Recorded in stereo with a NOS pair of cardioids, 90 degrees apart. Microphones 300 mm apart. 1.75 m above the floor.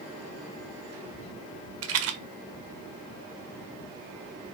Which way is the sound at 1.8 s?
55° right.